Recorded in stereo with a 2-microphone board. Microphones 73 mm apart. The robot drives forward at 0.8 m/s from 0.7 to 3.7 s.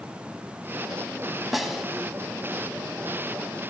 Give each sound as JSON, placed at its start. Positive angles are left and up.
{"t": 1.5, "sound": "a snare drum", "side_deg": -5, "distance_m": 0.7}